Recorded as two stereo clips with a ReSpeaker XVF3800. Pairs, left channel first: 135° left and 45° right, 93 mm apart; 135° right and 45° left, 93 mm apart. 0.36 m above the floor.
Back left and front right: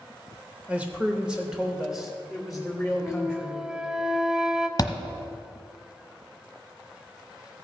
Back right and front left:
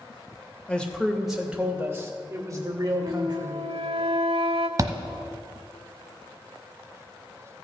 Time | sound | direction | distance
0.7 | a man speaking | 85° right | 1.2 m
3.0 | a flute | 40° left | 0.6 m
4.8 | a thud | 90° left | 0.9 m